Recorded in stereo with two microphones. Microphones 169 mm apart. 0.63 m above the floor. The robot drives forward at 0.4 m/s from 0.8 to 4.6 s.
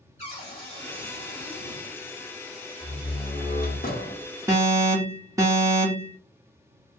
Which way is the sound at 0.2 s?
40° left (ahead or behind).